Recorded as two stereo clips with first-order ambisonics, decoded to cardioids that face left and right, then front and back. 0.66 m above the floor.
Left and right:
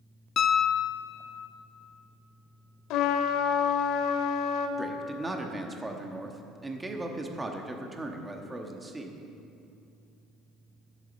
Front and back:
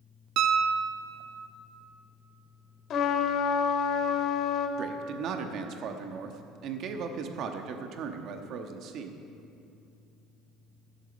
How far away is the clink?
I don't hear a clink.